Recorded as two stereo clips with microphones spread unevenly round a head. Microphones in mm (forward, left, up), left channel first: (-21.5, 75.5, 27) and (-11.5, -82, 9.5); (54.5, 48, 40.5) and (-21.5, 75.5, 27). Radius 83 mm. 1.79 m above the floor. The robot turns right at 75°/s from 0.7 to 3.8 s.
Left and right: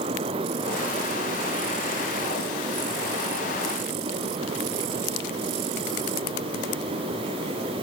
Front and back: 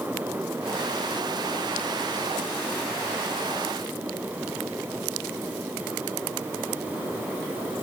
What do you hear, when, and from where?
Only background noise.